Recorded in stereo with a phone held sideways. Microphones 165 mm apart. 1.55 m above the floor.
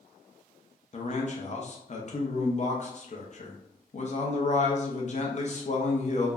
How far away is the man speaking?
About 0.7 m.